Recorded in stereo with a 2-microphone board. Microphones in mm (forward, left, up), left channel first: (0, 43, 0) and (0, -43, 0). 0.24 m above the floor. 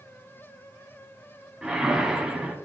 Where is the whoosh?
10° right (ahead or behind), 1.2 m.